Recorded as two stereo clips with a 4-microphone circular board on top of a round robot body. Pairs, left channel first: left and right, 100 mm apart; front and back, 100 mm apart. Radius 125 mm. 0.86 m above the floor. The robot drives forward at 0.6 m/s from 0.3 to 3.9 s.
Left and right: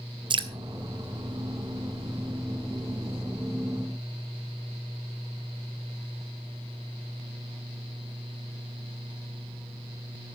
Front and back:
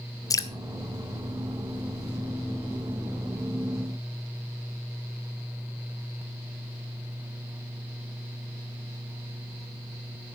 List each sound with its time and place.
0.3 s dripping: 55° right, 1.4 m